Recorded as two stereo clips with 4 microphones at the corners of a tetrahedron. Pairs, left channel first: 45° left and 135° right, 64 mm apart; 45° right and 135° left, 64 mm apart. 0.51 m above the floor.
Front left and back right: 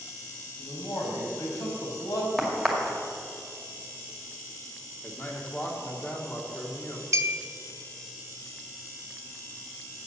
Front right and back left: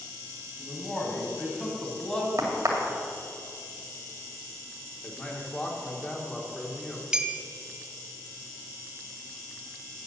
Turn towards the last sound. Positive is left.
turn(degrees=-150)